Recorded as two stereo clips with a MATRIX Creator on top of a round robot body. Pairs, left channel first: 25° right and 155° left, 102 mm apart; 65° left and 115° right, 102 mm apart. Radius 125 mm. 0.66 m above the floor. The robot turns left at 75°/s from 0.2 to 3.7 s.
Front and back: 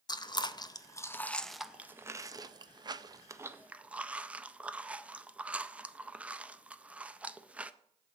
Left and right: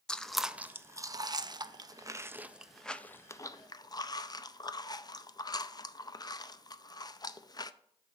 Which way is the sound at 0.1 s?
10° right.